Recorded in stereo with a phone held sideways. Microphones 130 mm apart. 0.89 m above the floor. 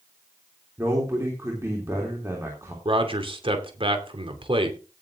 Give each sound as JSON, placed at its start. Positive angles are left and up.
{"t": 0.8, "sound": "a man speaking", "side_deg": -20, "distance_m": 3.0}
{"t": 2.9, "sound": "a man speaking", "side_deg": -40, "distance_m": 2.5}